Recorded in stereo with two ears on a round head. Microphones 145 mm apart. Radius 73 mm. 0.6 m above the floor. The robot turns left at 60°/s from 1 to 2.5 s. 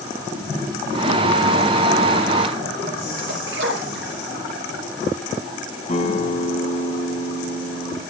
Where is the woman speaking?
No woman speaking in this recording.